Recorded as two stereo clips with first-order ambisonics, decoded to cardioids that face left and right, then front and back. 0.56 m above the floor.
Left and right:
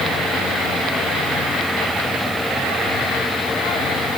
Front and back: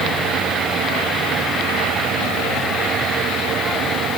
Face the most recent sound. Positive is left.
No sound to turn to.